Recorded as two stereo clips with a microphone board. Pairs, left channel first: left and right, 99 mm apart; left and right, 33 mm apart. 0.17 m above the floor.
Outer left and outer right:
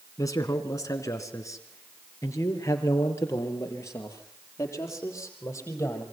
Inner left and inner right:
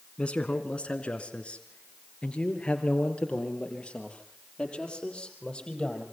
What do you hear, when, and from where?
0.2 s a man speaking: 35° left (ahead or behind), 1.6 m; by 6.0 s 25° left (ahead or behind), 5.5 m